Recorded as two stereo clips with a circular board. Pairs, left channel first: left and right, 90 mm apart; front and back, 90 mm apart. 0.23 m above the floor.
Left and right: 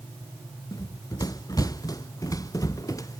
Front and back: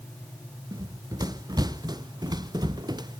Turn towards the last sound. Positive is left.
turn(degrees=140)